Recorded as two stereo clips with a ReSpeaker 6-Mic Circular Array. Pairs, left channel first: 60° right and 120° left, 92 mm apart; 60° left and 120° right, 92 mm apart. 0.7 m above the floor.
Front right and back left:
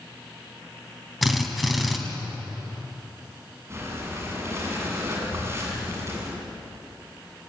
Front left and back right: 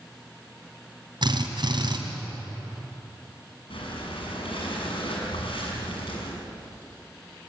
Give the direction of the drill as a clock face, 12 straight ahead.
5 o'clock.